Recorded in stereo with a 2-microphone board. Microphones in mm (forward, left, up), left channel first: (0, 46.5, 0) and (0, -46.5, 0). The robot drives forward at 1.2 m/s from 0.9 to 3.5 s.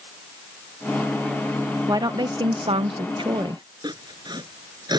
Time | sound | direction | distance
1.9 | a woman speaking | 40° right (ahead or behind) | ?
3.8 | sawing | 50° right (ahead or behind) | ?